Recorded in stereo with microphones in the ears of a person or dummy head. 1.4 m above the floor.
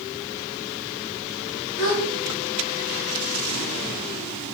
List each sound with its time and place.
1.8 s a gasp: 55° left (ahead or behind), 0.7 m